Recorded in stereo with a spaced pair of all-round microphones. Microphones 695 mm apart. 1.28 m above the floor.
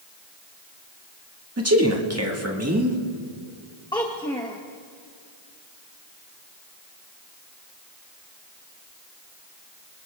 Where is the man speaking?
20° right (ahead or behind), 1.7 m.